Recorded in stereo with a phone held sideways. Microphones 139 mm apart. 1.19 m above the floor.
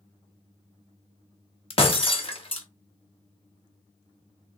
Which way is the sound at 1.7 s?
45° left (ahead or behind).